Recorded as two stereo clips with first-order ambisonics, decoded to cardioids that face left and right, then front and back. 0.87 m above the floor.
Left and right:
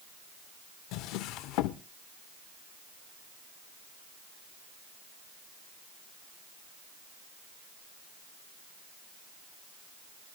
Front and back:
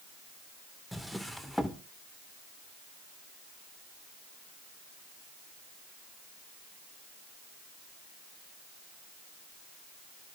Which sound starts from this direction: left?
A drawer, at 0.9 s.